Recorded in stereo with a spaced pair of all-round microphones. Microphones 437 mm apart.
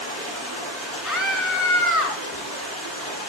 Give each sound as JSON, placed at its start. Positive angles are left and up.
{"t": 0.0, "sound": "running water", "side_deg": 30, "distance_m": 8.5}
{"t": 1.0, "sound": "a scream", "side_deg": 40, "distance_m": 3.5}